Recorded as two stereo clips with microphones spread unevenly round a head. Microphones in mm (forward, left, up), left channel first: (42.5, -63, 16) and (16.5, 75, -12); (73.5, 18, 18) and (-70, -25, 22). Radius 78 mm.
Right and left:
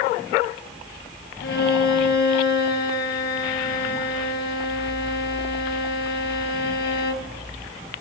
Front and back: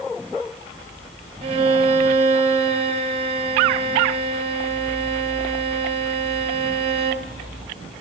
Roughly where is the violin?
Right.